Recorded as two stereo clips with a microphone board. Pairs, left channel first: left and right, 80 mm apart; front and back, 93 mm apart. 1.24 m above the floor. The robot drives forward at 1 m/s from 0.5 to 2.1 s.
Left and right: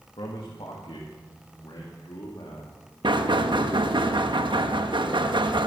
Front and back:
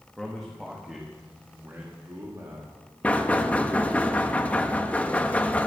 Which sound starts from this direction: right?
Knocking, at 3.0 s.